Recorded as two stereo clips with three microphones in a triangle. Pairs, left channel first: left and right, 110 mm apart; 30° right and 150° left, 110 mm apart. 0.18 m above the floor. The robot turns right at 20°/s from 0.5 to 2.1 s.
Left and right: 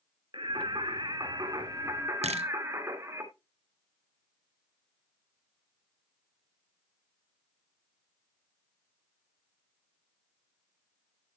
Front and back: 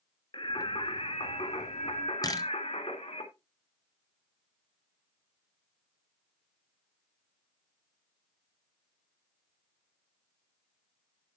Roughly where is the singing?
Ahead right.